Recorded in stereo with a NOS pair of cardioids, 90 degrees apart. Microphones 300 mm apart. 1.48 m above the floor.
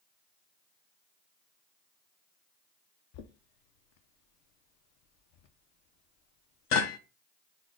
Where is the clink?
No clink in this recording.